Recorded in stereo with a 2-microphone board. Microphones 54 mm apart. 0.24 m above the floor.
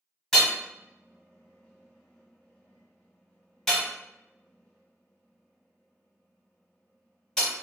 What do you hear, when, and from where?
0.3 s hammering: 10° left (ahead or behind), 1.2 m